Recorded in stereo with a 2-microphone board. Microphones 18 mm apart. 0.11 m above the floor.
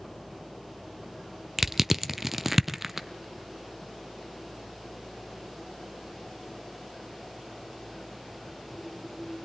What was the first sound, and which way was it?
Crushing, 10° right (ahead or behind).